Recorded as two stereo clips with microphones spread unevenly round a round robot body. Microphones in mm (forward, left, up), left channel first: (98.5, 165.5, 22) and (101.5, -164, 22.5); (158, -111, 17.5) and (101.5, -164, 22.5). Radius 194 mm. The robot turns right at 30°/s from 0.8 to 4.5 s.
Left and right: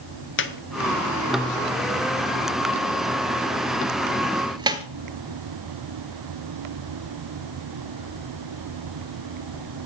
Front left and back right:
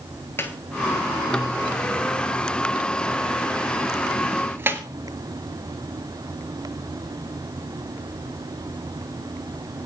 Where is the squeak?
90° left, 0.8 m; by 4.8 s 160° right, 0.8 m.